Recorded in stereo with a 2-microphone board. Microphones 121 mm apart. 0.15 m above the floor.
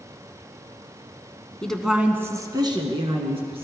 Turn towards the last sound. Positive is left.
turn(degrees=-55)  # may be behind; listen again after turning